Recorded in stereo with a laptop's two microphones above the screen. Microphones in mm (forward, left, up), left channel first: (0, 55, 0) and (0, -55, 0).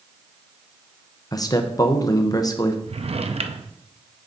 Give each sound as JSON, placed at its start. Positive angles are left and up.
{"t": 1.3, "sound": "a man speaking", "side_deg": 35, "distance_m": 0.6}
{"t": 2.9, "sound": "a drawer", "side_deg": -65, "distance_m": 0.6}